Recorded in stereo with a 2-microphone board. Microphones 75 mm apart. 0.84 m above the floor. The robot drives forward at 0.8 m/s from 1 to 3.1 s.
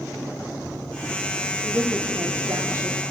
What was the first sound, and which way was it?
A woman speaking, 40° right (ahead or behind).